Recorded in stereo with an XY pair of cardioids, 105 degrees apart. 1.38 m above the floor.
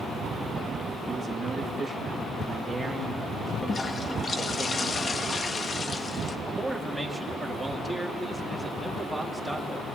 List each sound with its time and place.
1.1 s a man speaking: 30° right, 2.5 m; by 4.7 s 20° left, 3 m
3.7 s a toilet flushing: 35° left, 1.2 m
6.5 s a man speaking: 5° right, 2.5 m